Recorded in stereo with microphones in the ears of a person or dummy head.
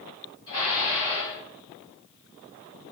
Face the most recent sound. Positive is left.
turn(degrees=20)  # may be behind; listen again after turning